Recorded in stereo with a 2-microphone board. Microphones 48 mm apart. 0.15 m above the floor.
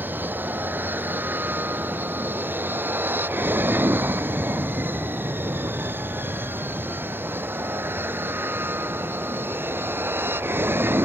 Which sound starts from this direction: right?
An aircraft, at 0.0 s.